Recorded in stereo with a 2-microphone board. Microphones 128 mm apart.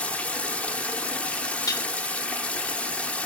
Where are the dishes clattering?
25° left (ahead or behind), 0.7 m.